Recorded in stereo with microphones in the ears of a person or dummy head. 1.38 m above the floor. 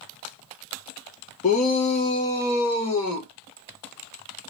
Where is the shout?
40° left (ahead or behind), 0.7 m; by 3.3 s 20° left (ahead or behind), 1.5 m.